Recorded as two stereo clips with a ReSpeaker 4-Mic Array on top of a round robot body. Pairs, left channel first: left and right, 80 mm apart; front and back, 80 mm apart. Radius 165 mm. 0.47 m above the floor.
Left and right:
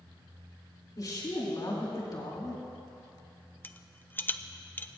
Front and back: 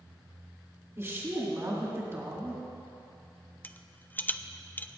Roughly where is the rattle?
Ahead left.